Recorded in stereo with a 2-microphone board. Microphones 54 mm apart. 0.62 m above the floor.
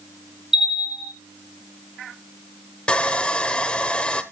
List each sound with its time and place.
0.5 s a bell: 10° right (ahead or behind), 2.5 m
2.9 s sawing: 20° left (ahead or behind), 1.1 m